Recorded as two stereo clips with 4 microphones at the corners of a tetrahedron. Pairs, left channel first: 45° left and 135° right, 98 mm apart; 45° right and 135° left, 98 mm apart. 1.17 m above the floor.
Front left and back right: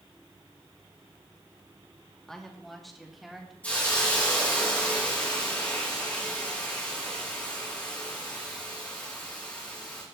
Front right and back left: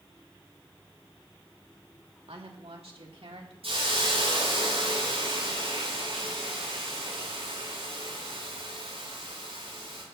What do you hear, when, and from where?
2.3 s a woman speaking: 130° left, 2.5 m; by 3.5 s 140° left, 3.5 m
3.6 s a hiss: 120° left, 9.5 m